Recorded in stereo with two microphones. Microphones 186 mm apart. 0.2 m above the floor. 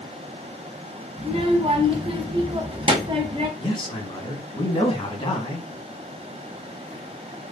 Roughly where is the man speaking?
Left.